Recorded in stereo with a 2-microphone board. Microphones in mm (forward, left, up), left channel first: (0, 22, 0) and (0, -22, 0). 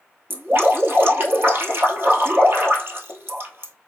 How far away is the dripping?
About 1.2 m.